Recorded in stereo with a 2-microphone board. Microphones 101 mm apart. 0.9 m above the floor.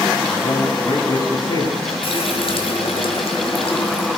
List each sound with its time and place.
0.3 s a man speaking: 35° left (ahead or behind), 9.5 m
2.0 s a running tap: 70° left (ahead or behind), 3.5 m